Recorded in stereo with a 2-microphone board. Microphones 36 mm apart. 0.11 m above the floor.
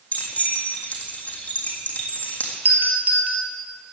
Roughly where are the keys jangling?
Left.